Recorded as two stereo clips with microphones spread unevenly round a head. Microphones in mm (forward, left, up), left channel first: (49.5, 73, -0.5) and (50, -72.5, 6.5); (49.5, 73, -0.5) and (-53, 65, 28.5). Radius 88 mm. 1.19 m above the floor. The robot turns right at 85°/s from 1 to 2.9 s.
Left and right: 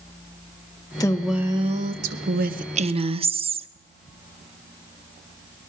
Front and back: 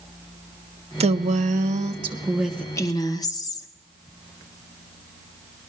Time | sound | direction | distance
1.0 | a woman speaking | 155° left | 0.9 m